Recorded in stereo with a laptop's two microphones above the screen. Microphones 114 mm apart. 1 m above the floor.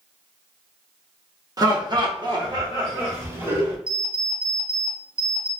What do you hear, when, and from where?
1.6 s laughter: 35° right (ahead or behind), 0.9 m; by 3.8 s 25° right (ahead or behind), 2 m
3.9 s an alarm clock: 45° right (ahead or behind), 0.8 m